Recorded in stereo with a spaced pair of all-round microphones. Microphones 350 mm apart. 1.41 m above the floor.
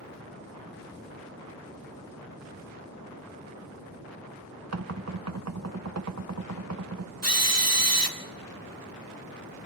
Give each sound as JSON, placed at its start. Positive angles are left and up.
{"t": 4.7, "sound": "knocking", "side_deg": -45, "distance_m": 0.7}
{"t": 7.2, "sound": "a drill", "side_deg": -45, "distance_m": 1.7}